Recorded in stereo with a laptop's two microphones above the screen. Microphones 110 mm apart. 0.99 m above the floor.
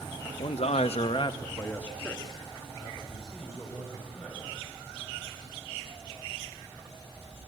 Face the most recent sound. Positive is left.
turn(degrees=-10)  # may be behind; listen again after turning